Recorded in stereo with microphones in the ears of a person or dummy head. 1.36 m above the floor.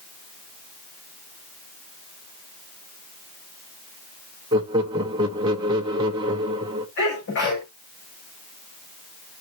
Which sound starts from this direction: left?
A sneeze, at 7.0 s.